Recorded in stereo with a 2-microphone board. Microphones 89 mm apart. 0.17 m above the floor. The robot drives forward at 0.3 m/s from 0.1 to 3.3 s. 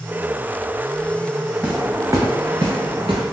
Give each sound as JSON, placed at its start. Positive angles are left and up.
{"t": 1.6, "sound": "footsteps", "side_deg": -15, "distance_m": 0.9}